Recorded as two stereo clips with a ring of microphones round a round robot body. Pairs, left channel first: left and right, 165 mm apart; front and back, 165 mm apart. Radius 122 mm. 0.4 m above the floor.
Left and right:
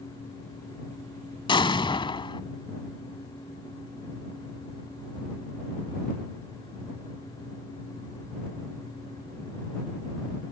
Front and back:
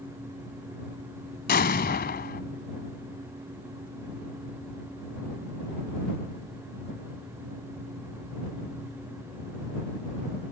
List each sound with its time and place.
1.5 s an explosion: 30° left